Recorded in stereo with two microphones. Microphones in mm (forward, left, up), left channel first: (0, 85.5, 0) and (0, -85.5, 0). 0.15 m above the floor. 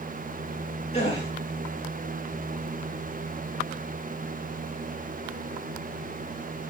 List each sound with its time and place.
0.9 s a gasp: 35° left (ahead or behind), 7 m